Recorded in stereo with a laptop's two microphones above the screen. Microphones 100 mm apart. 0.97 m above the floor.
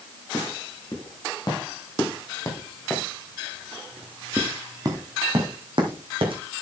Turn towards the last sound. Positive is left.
turn(degrees=-60)  # may be behind; listen again after turning